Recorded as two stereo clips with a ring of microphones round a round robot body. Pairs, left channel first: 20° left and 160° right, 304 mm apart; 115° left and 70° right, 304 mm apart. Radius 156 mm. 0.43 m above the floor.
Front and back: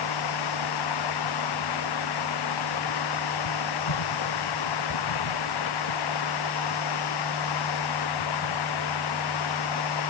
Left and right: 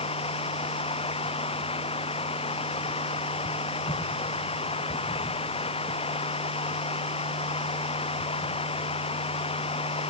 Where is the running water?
40° left.